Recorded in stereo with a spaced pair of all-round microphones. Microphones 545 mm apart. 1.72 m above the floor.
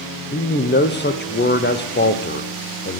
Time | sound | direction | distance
0.3 | a man speaking | 20° left (ahead or behind) | 0.7 m